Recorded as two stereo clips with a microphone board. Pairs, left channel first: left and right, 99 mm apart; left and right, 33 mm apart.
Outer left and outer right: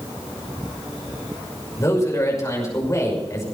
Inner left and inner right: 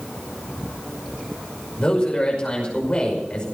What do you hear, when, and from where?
1.8 s a man speaking: 35° left (ahead or behind), 5.5 m